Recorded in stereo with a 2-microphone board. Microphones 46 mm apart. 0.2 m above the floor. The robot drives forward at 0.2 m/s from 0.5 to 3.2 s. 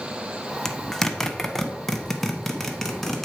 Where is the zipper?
10° left (ahead or behind), 0.5 m; by 3.2 s 5° left (ahead or behind), 0.9 m.